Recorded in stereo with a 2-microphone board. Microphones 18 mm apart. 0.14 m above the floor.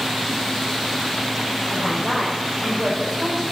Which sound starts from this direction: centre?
A woman speaking, at 1.7 s.